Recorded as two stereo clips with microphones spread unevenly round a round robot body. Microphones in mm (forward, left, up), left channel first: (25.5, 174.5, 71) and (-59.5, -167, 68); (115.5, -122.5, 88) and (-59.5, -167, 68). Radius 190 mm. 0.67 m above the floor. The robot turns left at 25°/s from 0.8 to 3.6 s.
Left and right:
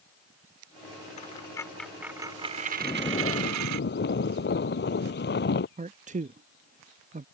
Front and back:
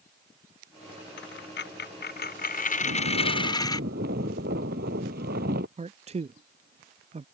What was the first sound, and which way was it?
A dropped coin, 5° left.